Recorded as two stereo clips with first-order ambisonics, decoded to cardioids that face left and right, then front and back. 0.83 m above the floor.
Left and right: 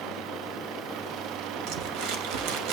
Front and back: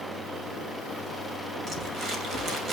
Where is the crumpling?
115° right, 2.5 m.